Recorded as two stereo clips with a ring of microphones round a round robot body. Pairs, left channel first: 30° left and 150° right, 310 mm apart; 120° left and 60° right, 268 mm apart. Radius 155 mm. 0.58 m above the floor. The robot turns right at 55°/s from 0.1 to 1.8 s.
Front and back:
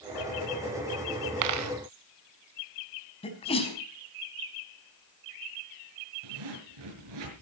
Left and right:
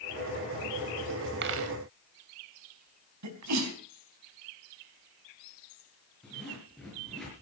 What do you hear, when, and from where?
1.4 s a dropped coin: 120° right, 0.8 m; by 1.7 s 100° right, 0.8 m
3.2 s a sneeze: 40° right, 4.5 m
6.2 s a zipper: 150° right, 6 m